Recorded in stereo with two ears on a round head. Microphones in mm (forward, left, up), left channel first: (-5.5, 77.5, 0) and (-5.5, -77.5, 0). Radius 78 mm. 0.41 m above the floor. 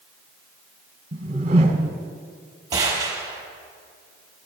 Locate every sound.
1.1 s a whoosh: 40° right (ahead or behind), 1.8 m
2.7 s a gunshot: 20° right (ahead or behind), 4.5 m